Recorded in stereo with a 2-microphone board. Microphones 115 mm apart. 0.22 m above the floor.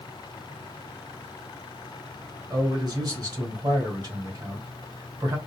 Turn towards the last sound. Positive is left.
turn(degrees=-35)  # may be behind; listen again after turning